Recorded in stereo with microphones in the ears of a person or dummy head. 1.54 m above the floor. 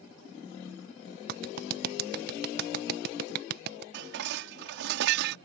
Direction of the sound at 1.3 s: 60° right (ahead or behind).